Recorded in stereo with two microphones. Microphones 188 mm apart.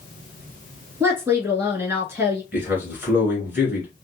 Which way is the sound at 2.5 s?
10° right (ahead or behind).